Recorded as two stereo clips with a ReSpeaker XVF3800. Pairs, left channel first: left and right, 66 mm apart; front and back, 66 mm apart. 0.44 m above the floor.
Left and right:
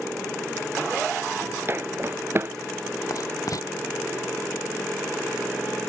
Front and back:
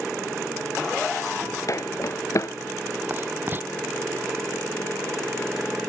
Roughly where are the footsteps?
Ahead right.